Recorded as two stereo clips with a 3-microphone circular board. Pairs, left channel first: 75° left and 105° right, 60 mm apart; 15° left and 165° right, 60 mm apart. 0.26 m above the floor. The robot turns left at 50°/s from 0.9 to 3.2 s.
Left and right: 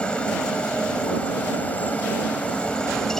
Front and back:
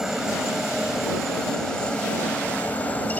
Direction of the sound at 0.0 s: 120° left.